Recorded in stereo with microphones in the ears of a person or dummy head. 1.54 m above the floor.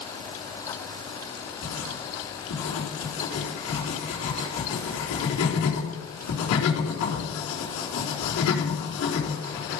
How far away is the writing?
About 4 m.